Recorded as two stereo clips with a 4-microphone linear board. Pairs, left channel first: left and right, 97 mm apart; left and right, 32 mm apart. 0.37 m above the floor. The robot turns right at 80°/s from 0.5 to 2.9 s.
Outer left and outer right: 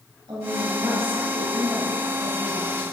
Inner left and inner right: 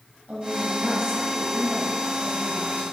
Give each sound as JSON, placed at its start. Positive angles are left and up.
{"t": 0.3, "sound": "a woman speaking", "azimuth_deg": -70, "distance_m": 2.0}